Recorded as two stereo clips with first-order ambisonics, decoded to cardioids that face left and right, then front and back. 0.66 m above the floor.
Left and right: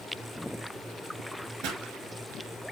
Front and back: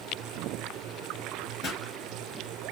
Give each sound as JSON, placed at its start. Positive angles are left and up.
{"t": 1.6, "sound": "a pop", "azimuth_deg": -65, "distance_m": 1.8}